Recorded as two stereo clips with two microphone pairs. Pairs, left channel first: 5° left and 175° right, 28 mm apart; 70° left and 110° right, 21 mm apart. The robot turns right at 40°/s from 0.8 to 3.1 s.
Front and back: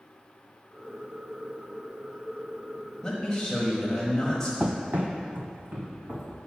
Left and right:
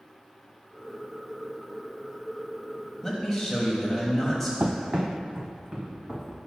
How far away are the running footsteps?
About 0.5 m.